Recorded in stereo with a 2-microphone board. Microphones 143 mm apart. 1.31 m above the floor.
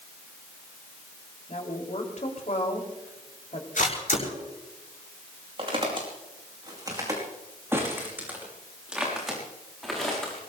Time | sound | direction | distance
1.5 | a woman speaking | 55° left (ahead or behind) | 4 m
3.8 | a camera shutter | 65° left (ahead or behind) | 6 m
5.6 | footsteps | 40° right (ahead or behind) | 5 m